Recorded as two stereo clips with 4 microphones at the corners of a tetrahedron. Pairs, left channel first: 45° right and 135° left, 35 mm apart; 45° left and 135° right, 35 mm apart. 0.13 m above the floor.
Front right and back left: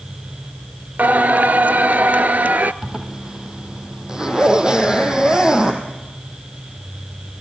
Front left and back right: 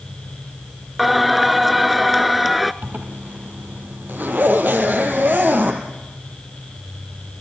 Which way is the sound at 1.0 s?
140° left.